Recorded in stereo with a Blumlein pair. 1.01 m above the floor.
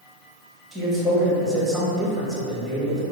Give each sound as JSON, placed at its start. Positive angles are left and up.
{"t": 0.7, "sound": "a man speaking", "azimuth_deg": 0, "distance_m": 1.1}